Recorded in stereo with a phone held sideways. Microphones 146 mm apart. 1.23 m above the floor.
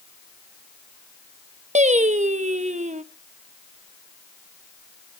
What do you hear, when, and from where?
1.8 s singing: 50° right (ahead or behind), 0.9 m